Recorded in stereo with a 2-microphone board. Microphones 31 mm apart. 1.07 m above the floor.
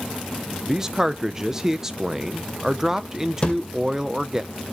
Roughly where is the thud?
Left.